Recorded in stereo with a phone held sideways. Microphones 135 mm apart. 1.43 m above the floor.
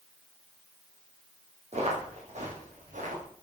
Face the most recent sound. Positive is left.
turn(degrees=-65)  # may be behind; listen again after turning